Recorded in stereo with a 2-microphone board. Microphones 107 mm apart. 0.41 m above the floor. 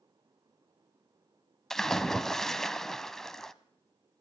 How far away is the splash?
About 0.7 m.